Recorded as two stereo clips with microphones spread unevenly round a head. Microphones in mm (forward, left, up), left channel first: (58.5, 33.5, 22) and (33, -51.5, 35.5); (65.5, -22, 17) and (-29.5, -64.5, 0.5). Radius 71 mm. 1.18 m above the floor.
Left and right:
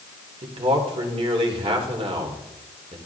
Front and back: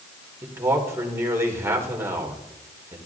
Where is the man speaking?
90° right, 3.5 m.